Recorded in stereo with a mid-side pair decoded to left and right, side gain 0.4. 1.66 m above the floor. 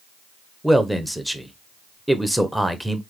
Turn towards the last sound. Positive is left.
turn(degrees=-5)